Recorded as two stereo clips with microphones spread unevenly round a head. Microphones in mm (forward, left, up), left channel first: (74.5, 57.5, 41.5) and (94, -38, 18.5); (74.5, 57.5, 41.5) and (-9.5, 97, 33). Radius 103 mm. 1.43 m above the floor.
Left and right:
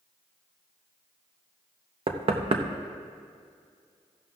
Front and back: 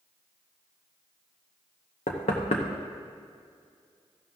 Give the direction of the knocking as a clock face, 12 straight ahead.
2 o'clock.